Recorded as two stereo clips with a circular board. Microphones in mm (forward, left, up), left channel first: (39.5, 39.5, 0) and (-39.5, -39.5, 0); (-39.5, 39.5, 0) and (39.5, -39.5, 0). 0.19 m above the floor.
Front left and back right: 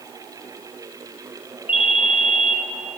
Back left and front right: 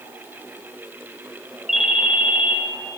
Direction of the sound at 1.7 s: 40° left.